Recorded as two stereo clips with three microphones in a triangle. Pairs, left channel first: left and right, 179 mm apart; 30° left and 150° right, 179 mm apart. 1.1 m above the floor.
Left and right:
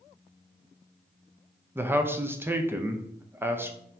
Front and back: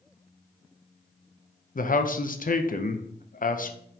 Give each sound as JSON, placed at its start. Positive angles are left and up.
{"t": 1.8, "sound": "a man speaking", "azimuth_deg": -15, "distance_m": 0.5}